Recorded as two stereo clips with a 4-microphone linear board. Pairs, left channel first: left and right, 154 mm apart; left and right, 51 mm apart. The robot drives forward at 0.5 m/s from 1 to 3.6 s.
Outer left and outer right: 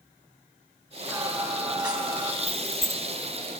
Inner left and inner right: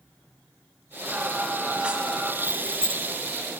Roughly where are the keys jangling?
Centre.